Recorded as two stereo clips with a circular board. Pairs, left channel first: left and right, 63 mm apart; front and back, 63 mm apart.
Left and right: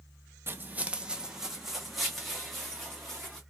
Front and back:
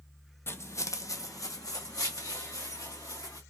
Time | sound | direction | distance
0.5 | footsteps | 40° right | 0.5 m